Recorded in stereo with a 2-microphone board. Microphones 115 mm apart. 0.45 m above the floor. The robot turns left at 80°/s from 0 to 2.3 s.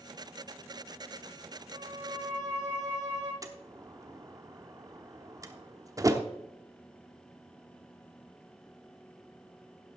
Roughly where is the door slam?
Right.